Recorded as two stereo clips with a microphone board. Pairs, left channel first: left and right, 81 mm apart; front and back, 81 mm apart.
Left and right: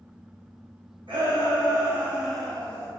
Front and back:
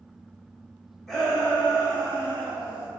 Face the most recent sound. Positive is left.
turn(degrees=160)